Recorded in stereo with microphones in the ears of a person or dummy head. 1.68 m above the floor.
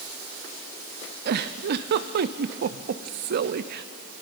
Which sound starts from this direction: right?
A giggle, at 1.2 s.